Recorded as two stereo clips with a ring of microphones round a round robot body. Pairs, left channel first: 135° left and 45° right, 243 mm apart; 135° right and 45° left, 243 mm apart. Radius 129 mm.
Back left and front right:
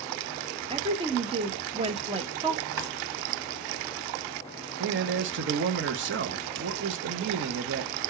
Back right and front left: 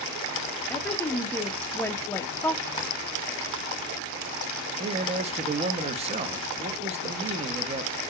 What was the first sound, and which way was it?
A woman speaking, 65° right.